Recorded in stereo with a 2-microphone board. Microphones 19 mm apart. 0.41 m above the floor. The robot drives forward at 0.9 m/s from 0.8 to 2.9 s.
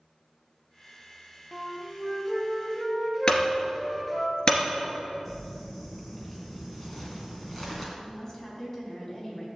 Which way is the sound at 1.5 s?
5° right (ahead or behind).